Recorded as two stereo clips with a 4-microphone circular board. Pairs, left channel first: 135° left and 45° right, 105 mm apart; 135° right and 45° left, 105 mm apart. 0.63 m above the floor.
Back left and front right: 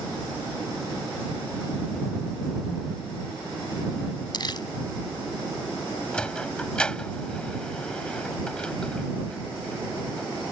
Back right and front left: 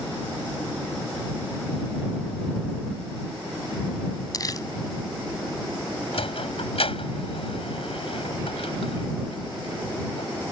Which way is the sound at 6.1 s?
145° right.